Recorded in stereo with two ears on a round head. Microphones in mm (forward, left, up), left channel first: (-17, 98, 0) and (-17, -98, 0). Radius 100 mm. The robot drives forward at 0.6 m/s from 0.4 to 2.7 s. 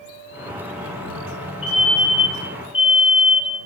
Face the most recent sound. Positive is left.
turn(degrees=25)  # may be behind; listen again after turning